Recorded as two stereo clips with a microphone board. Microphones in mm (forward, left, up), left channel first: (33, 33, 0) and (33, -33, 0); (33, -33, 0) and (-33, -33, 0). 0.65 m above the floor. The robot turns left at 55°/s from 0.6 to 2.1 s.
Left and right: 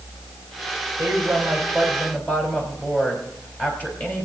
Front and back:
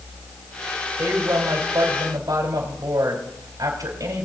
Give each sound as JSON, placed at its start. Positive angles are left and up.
{"t": 1.0, "sound": "a woman speaking", "azimuth_deg": -140, "distance_m": 4.0}